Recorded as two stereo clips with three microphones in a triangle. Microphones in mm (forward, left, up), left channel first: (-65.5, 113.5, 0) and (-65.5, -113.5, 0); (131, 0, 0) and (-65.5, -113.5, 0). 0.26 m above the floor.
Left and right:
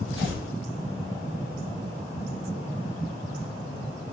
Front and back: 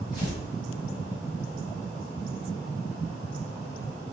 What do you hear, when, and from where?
0.1 s tearing paper: 100° left, 1.7 m